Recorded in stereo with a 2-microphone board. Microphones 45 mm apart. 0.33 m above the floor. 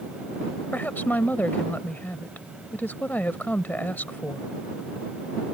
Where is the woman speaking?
40° left (ahead or behind).